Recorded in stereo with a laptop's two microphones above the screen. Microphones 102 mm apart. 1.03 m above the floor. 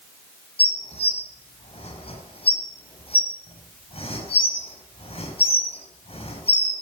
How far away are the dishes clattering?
About 7 m.